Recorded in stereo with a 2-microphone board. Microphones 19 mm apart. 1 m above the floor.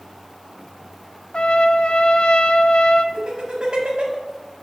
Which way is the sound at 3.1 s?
50° right (ahead or behind).